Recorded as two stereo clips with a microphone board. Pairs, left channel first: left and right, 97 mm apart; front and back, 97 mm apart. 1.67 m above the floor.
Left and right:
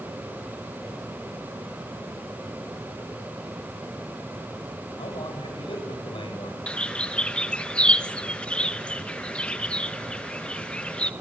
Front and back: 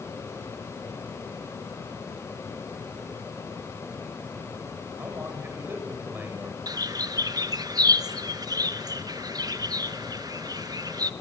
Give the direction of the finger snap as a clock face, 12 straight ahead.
No finger snap in this recording.